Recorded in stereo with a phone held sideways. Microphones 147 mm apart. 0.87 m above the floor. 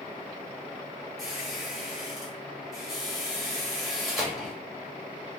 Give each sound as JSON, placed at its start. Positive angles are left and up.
{"t": 1.2, "sound": "a squeak", "side_deg": 0, "distance_m": 1.3}